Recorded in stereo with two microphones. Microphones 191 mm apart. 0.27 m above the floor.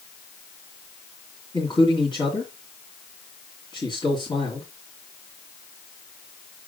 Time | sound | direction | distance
1.5 | a man speaking | 25° left (ahead or behind) | 2.5 m